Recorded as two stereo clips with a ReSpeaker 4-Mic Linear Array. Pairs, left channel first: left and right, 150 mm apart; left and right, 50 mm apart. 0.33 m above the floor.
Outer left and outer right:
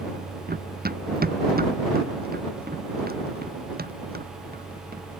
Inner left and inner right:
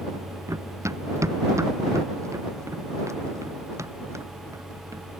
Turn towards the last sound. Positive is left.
turn(degrees=-80)